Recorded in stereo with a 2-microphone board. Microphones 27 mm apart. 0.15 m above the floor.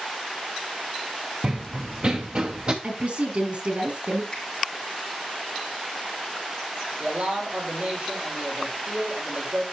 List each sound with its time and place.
1.4 s running footsteps: 35° right (ahead or behind), 0.7 m; by 2.7 s 40° right (ahead or behind), 1.4 m
2.8 s a woman speaking: 60° right (ahead or behind), 3 m
4.3 s a finger snap: 15° left (ahead or behind), 5.5 m
7.0 s a man speaking: 65° right (ahead or behind), 7 m